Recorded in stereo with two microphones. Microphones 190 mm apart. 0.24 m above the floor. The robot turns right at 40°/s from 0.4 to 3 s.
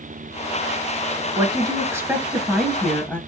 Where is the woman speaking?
45° right, 1.1 m; by 3.2 s 20° left, 1.1 m.